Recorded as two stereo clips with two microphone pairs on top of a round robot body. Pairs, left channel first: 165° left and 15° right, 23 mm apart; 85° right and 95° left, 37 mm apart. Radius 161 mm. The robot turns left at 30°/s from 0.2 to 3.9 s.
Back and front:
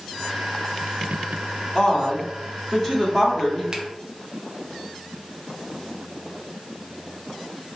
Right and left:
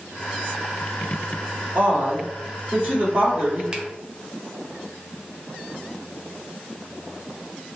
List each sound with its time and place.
1.8 s a woman speaking: 130° left, 1.6 m; by 3.6 s 75° left, 1.6 m
3.7 s a finger snap: 25° left, 0.6 m